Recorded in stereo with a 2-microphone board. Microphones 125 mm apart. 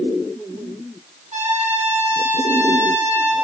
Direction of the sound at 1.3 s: 65° right (ahead or behind).